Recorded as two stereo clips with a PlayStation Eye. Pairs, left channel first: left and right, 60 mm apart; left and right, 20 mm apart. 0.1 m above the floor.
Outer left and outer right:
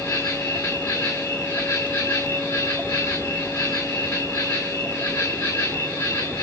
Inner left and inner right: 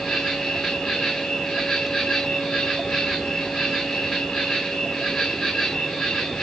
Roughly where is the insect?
Left.